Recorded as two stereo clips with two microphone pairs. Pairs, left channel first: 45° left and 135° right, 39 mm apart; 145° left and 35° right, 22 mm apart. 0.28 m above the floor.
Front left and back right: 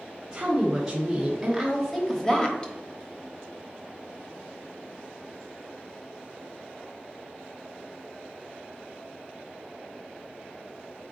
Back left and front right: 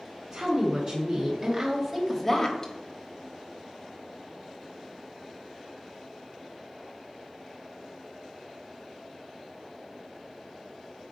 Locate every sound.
0.3 s a woman speaking: 60° right, 2.5 m; by 2.7 s 100° left, 1.3 m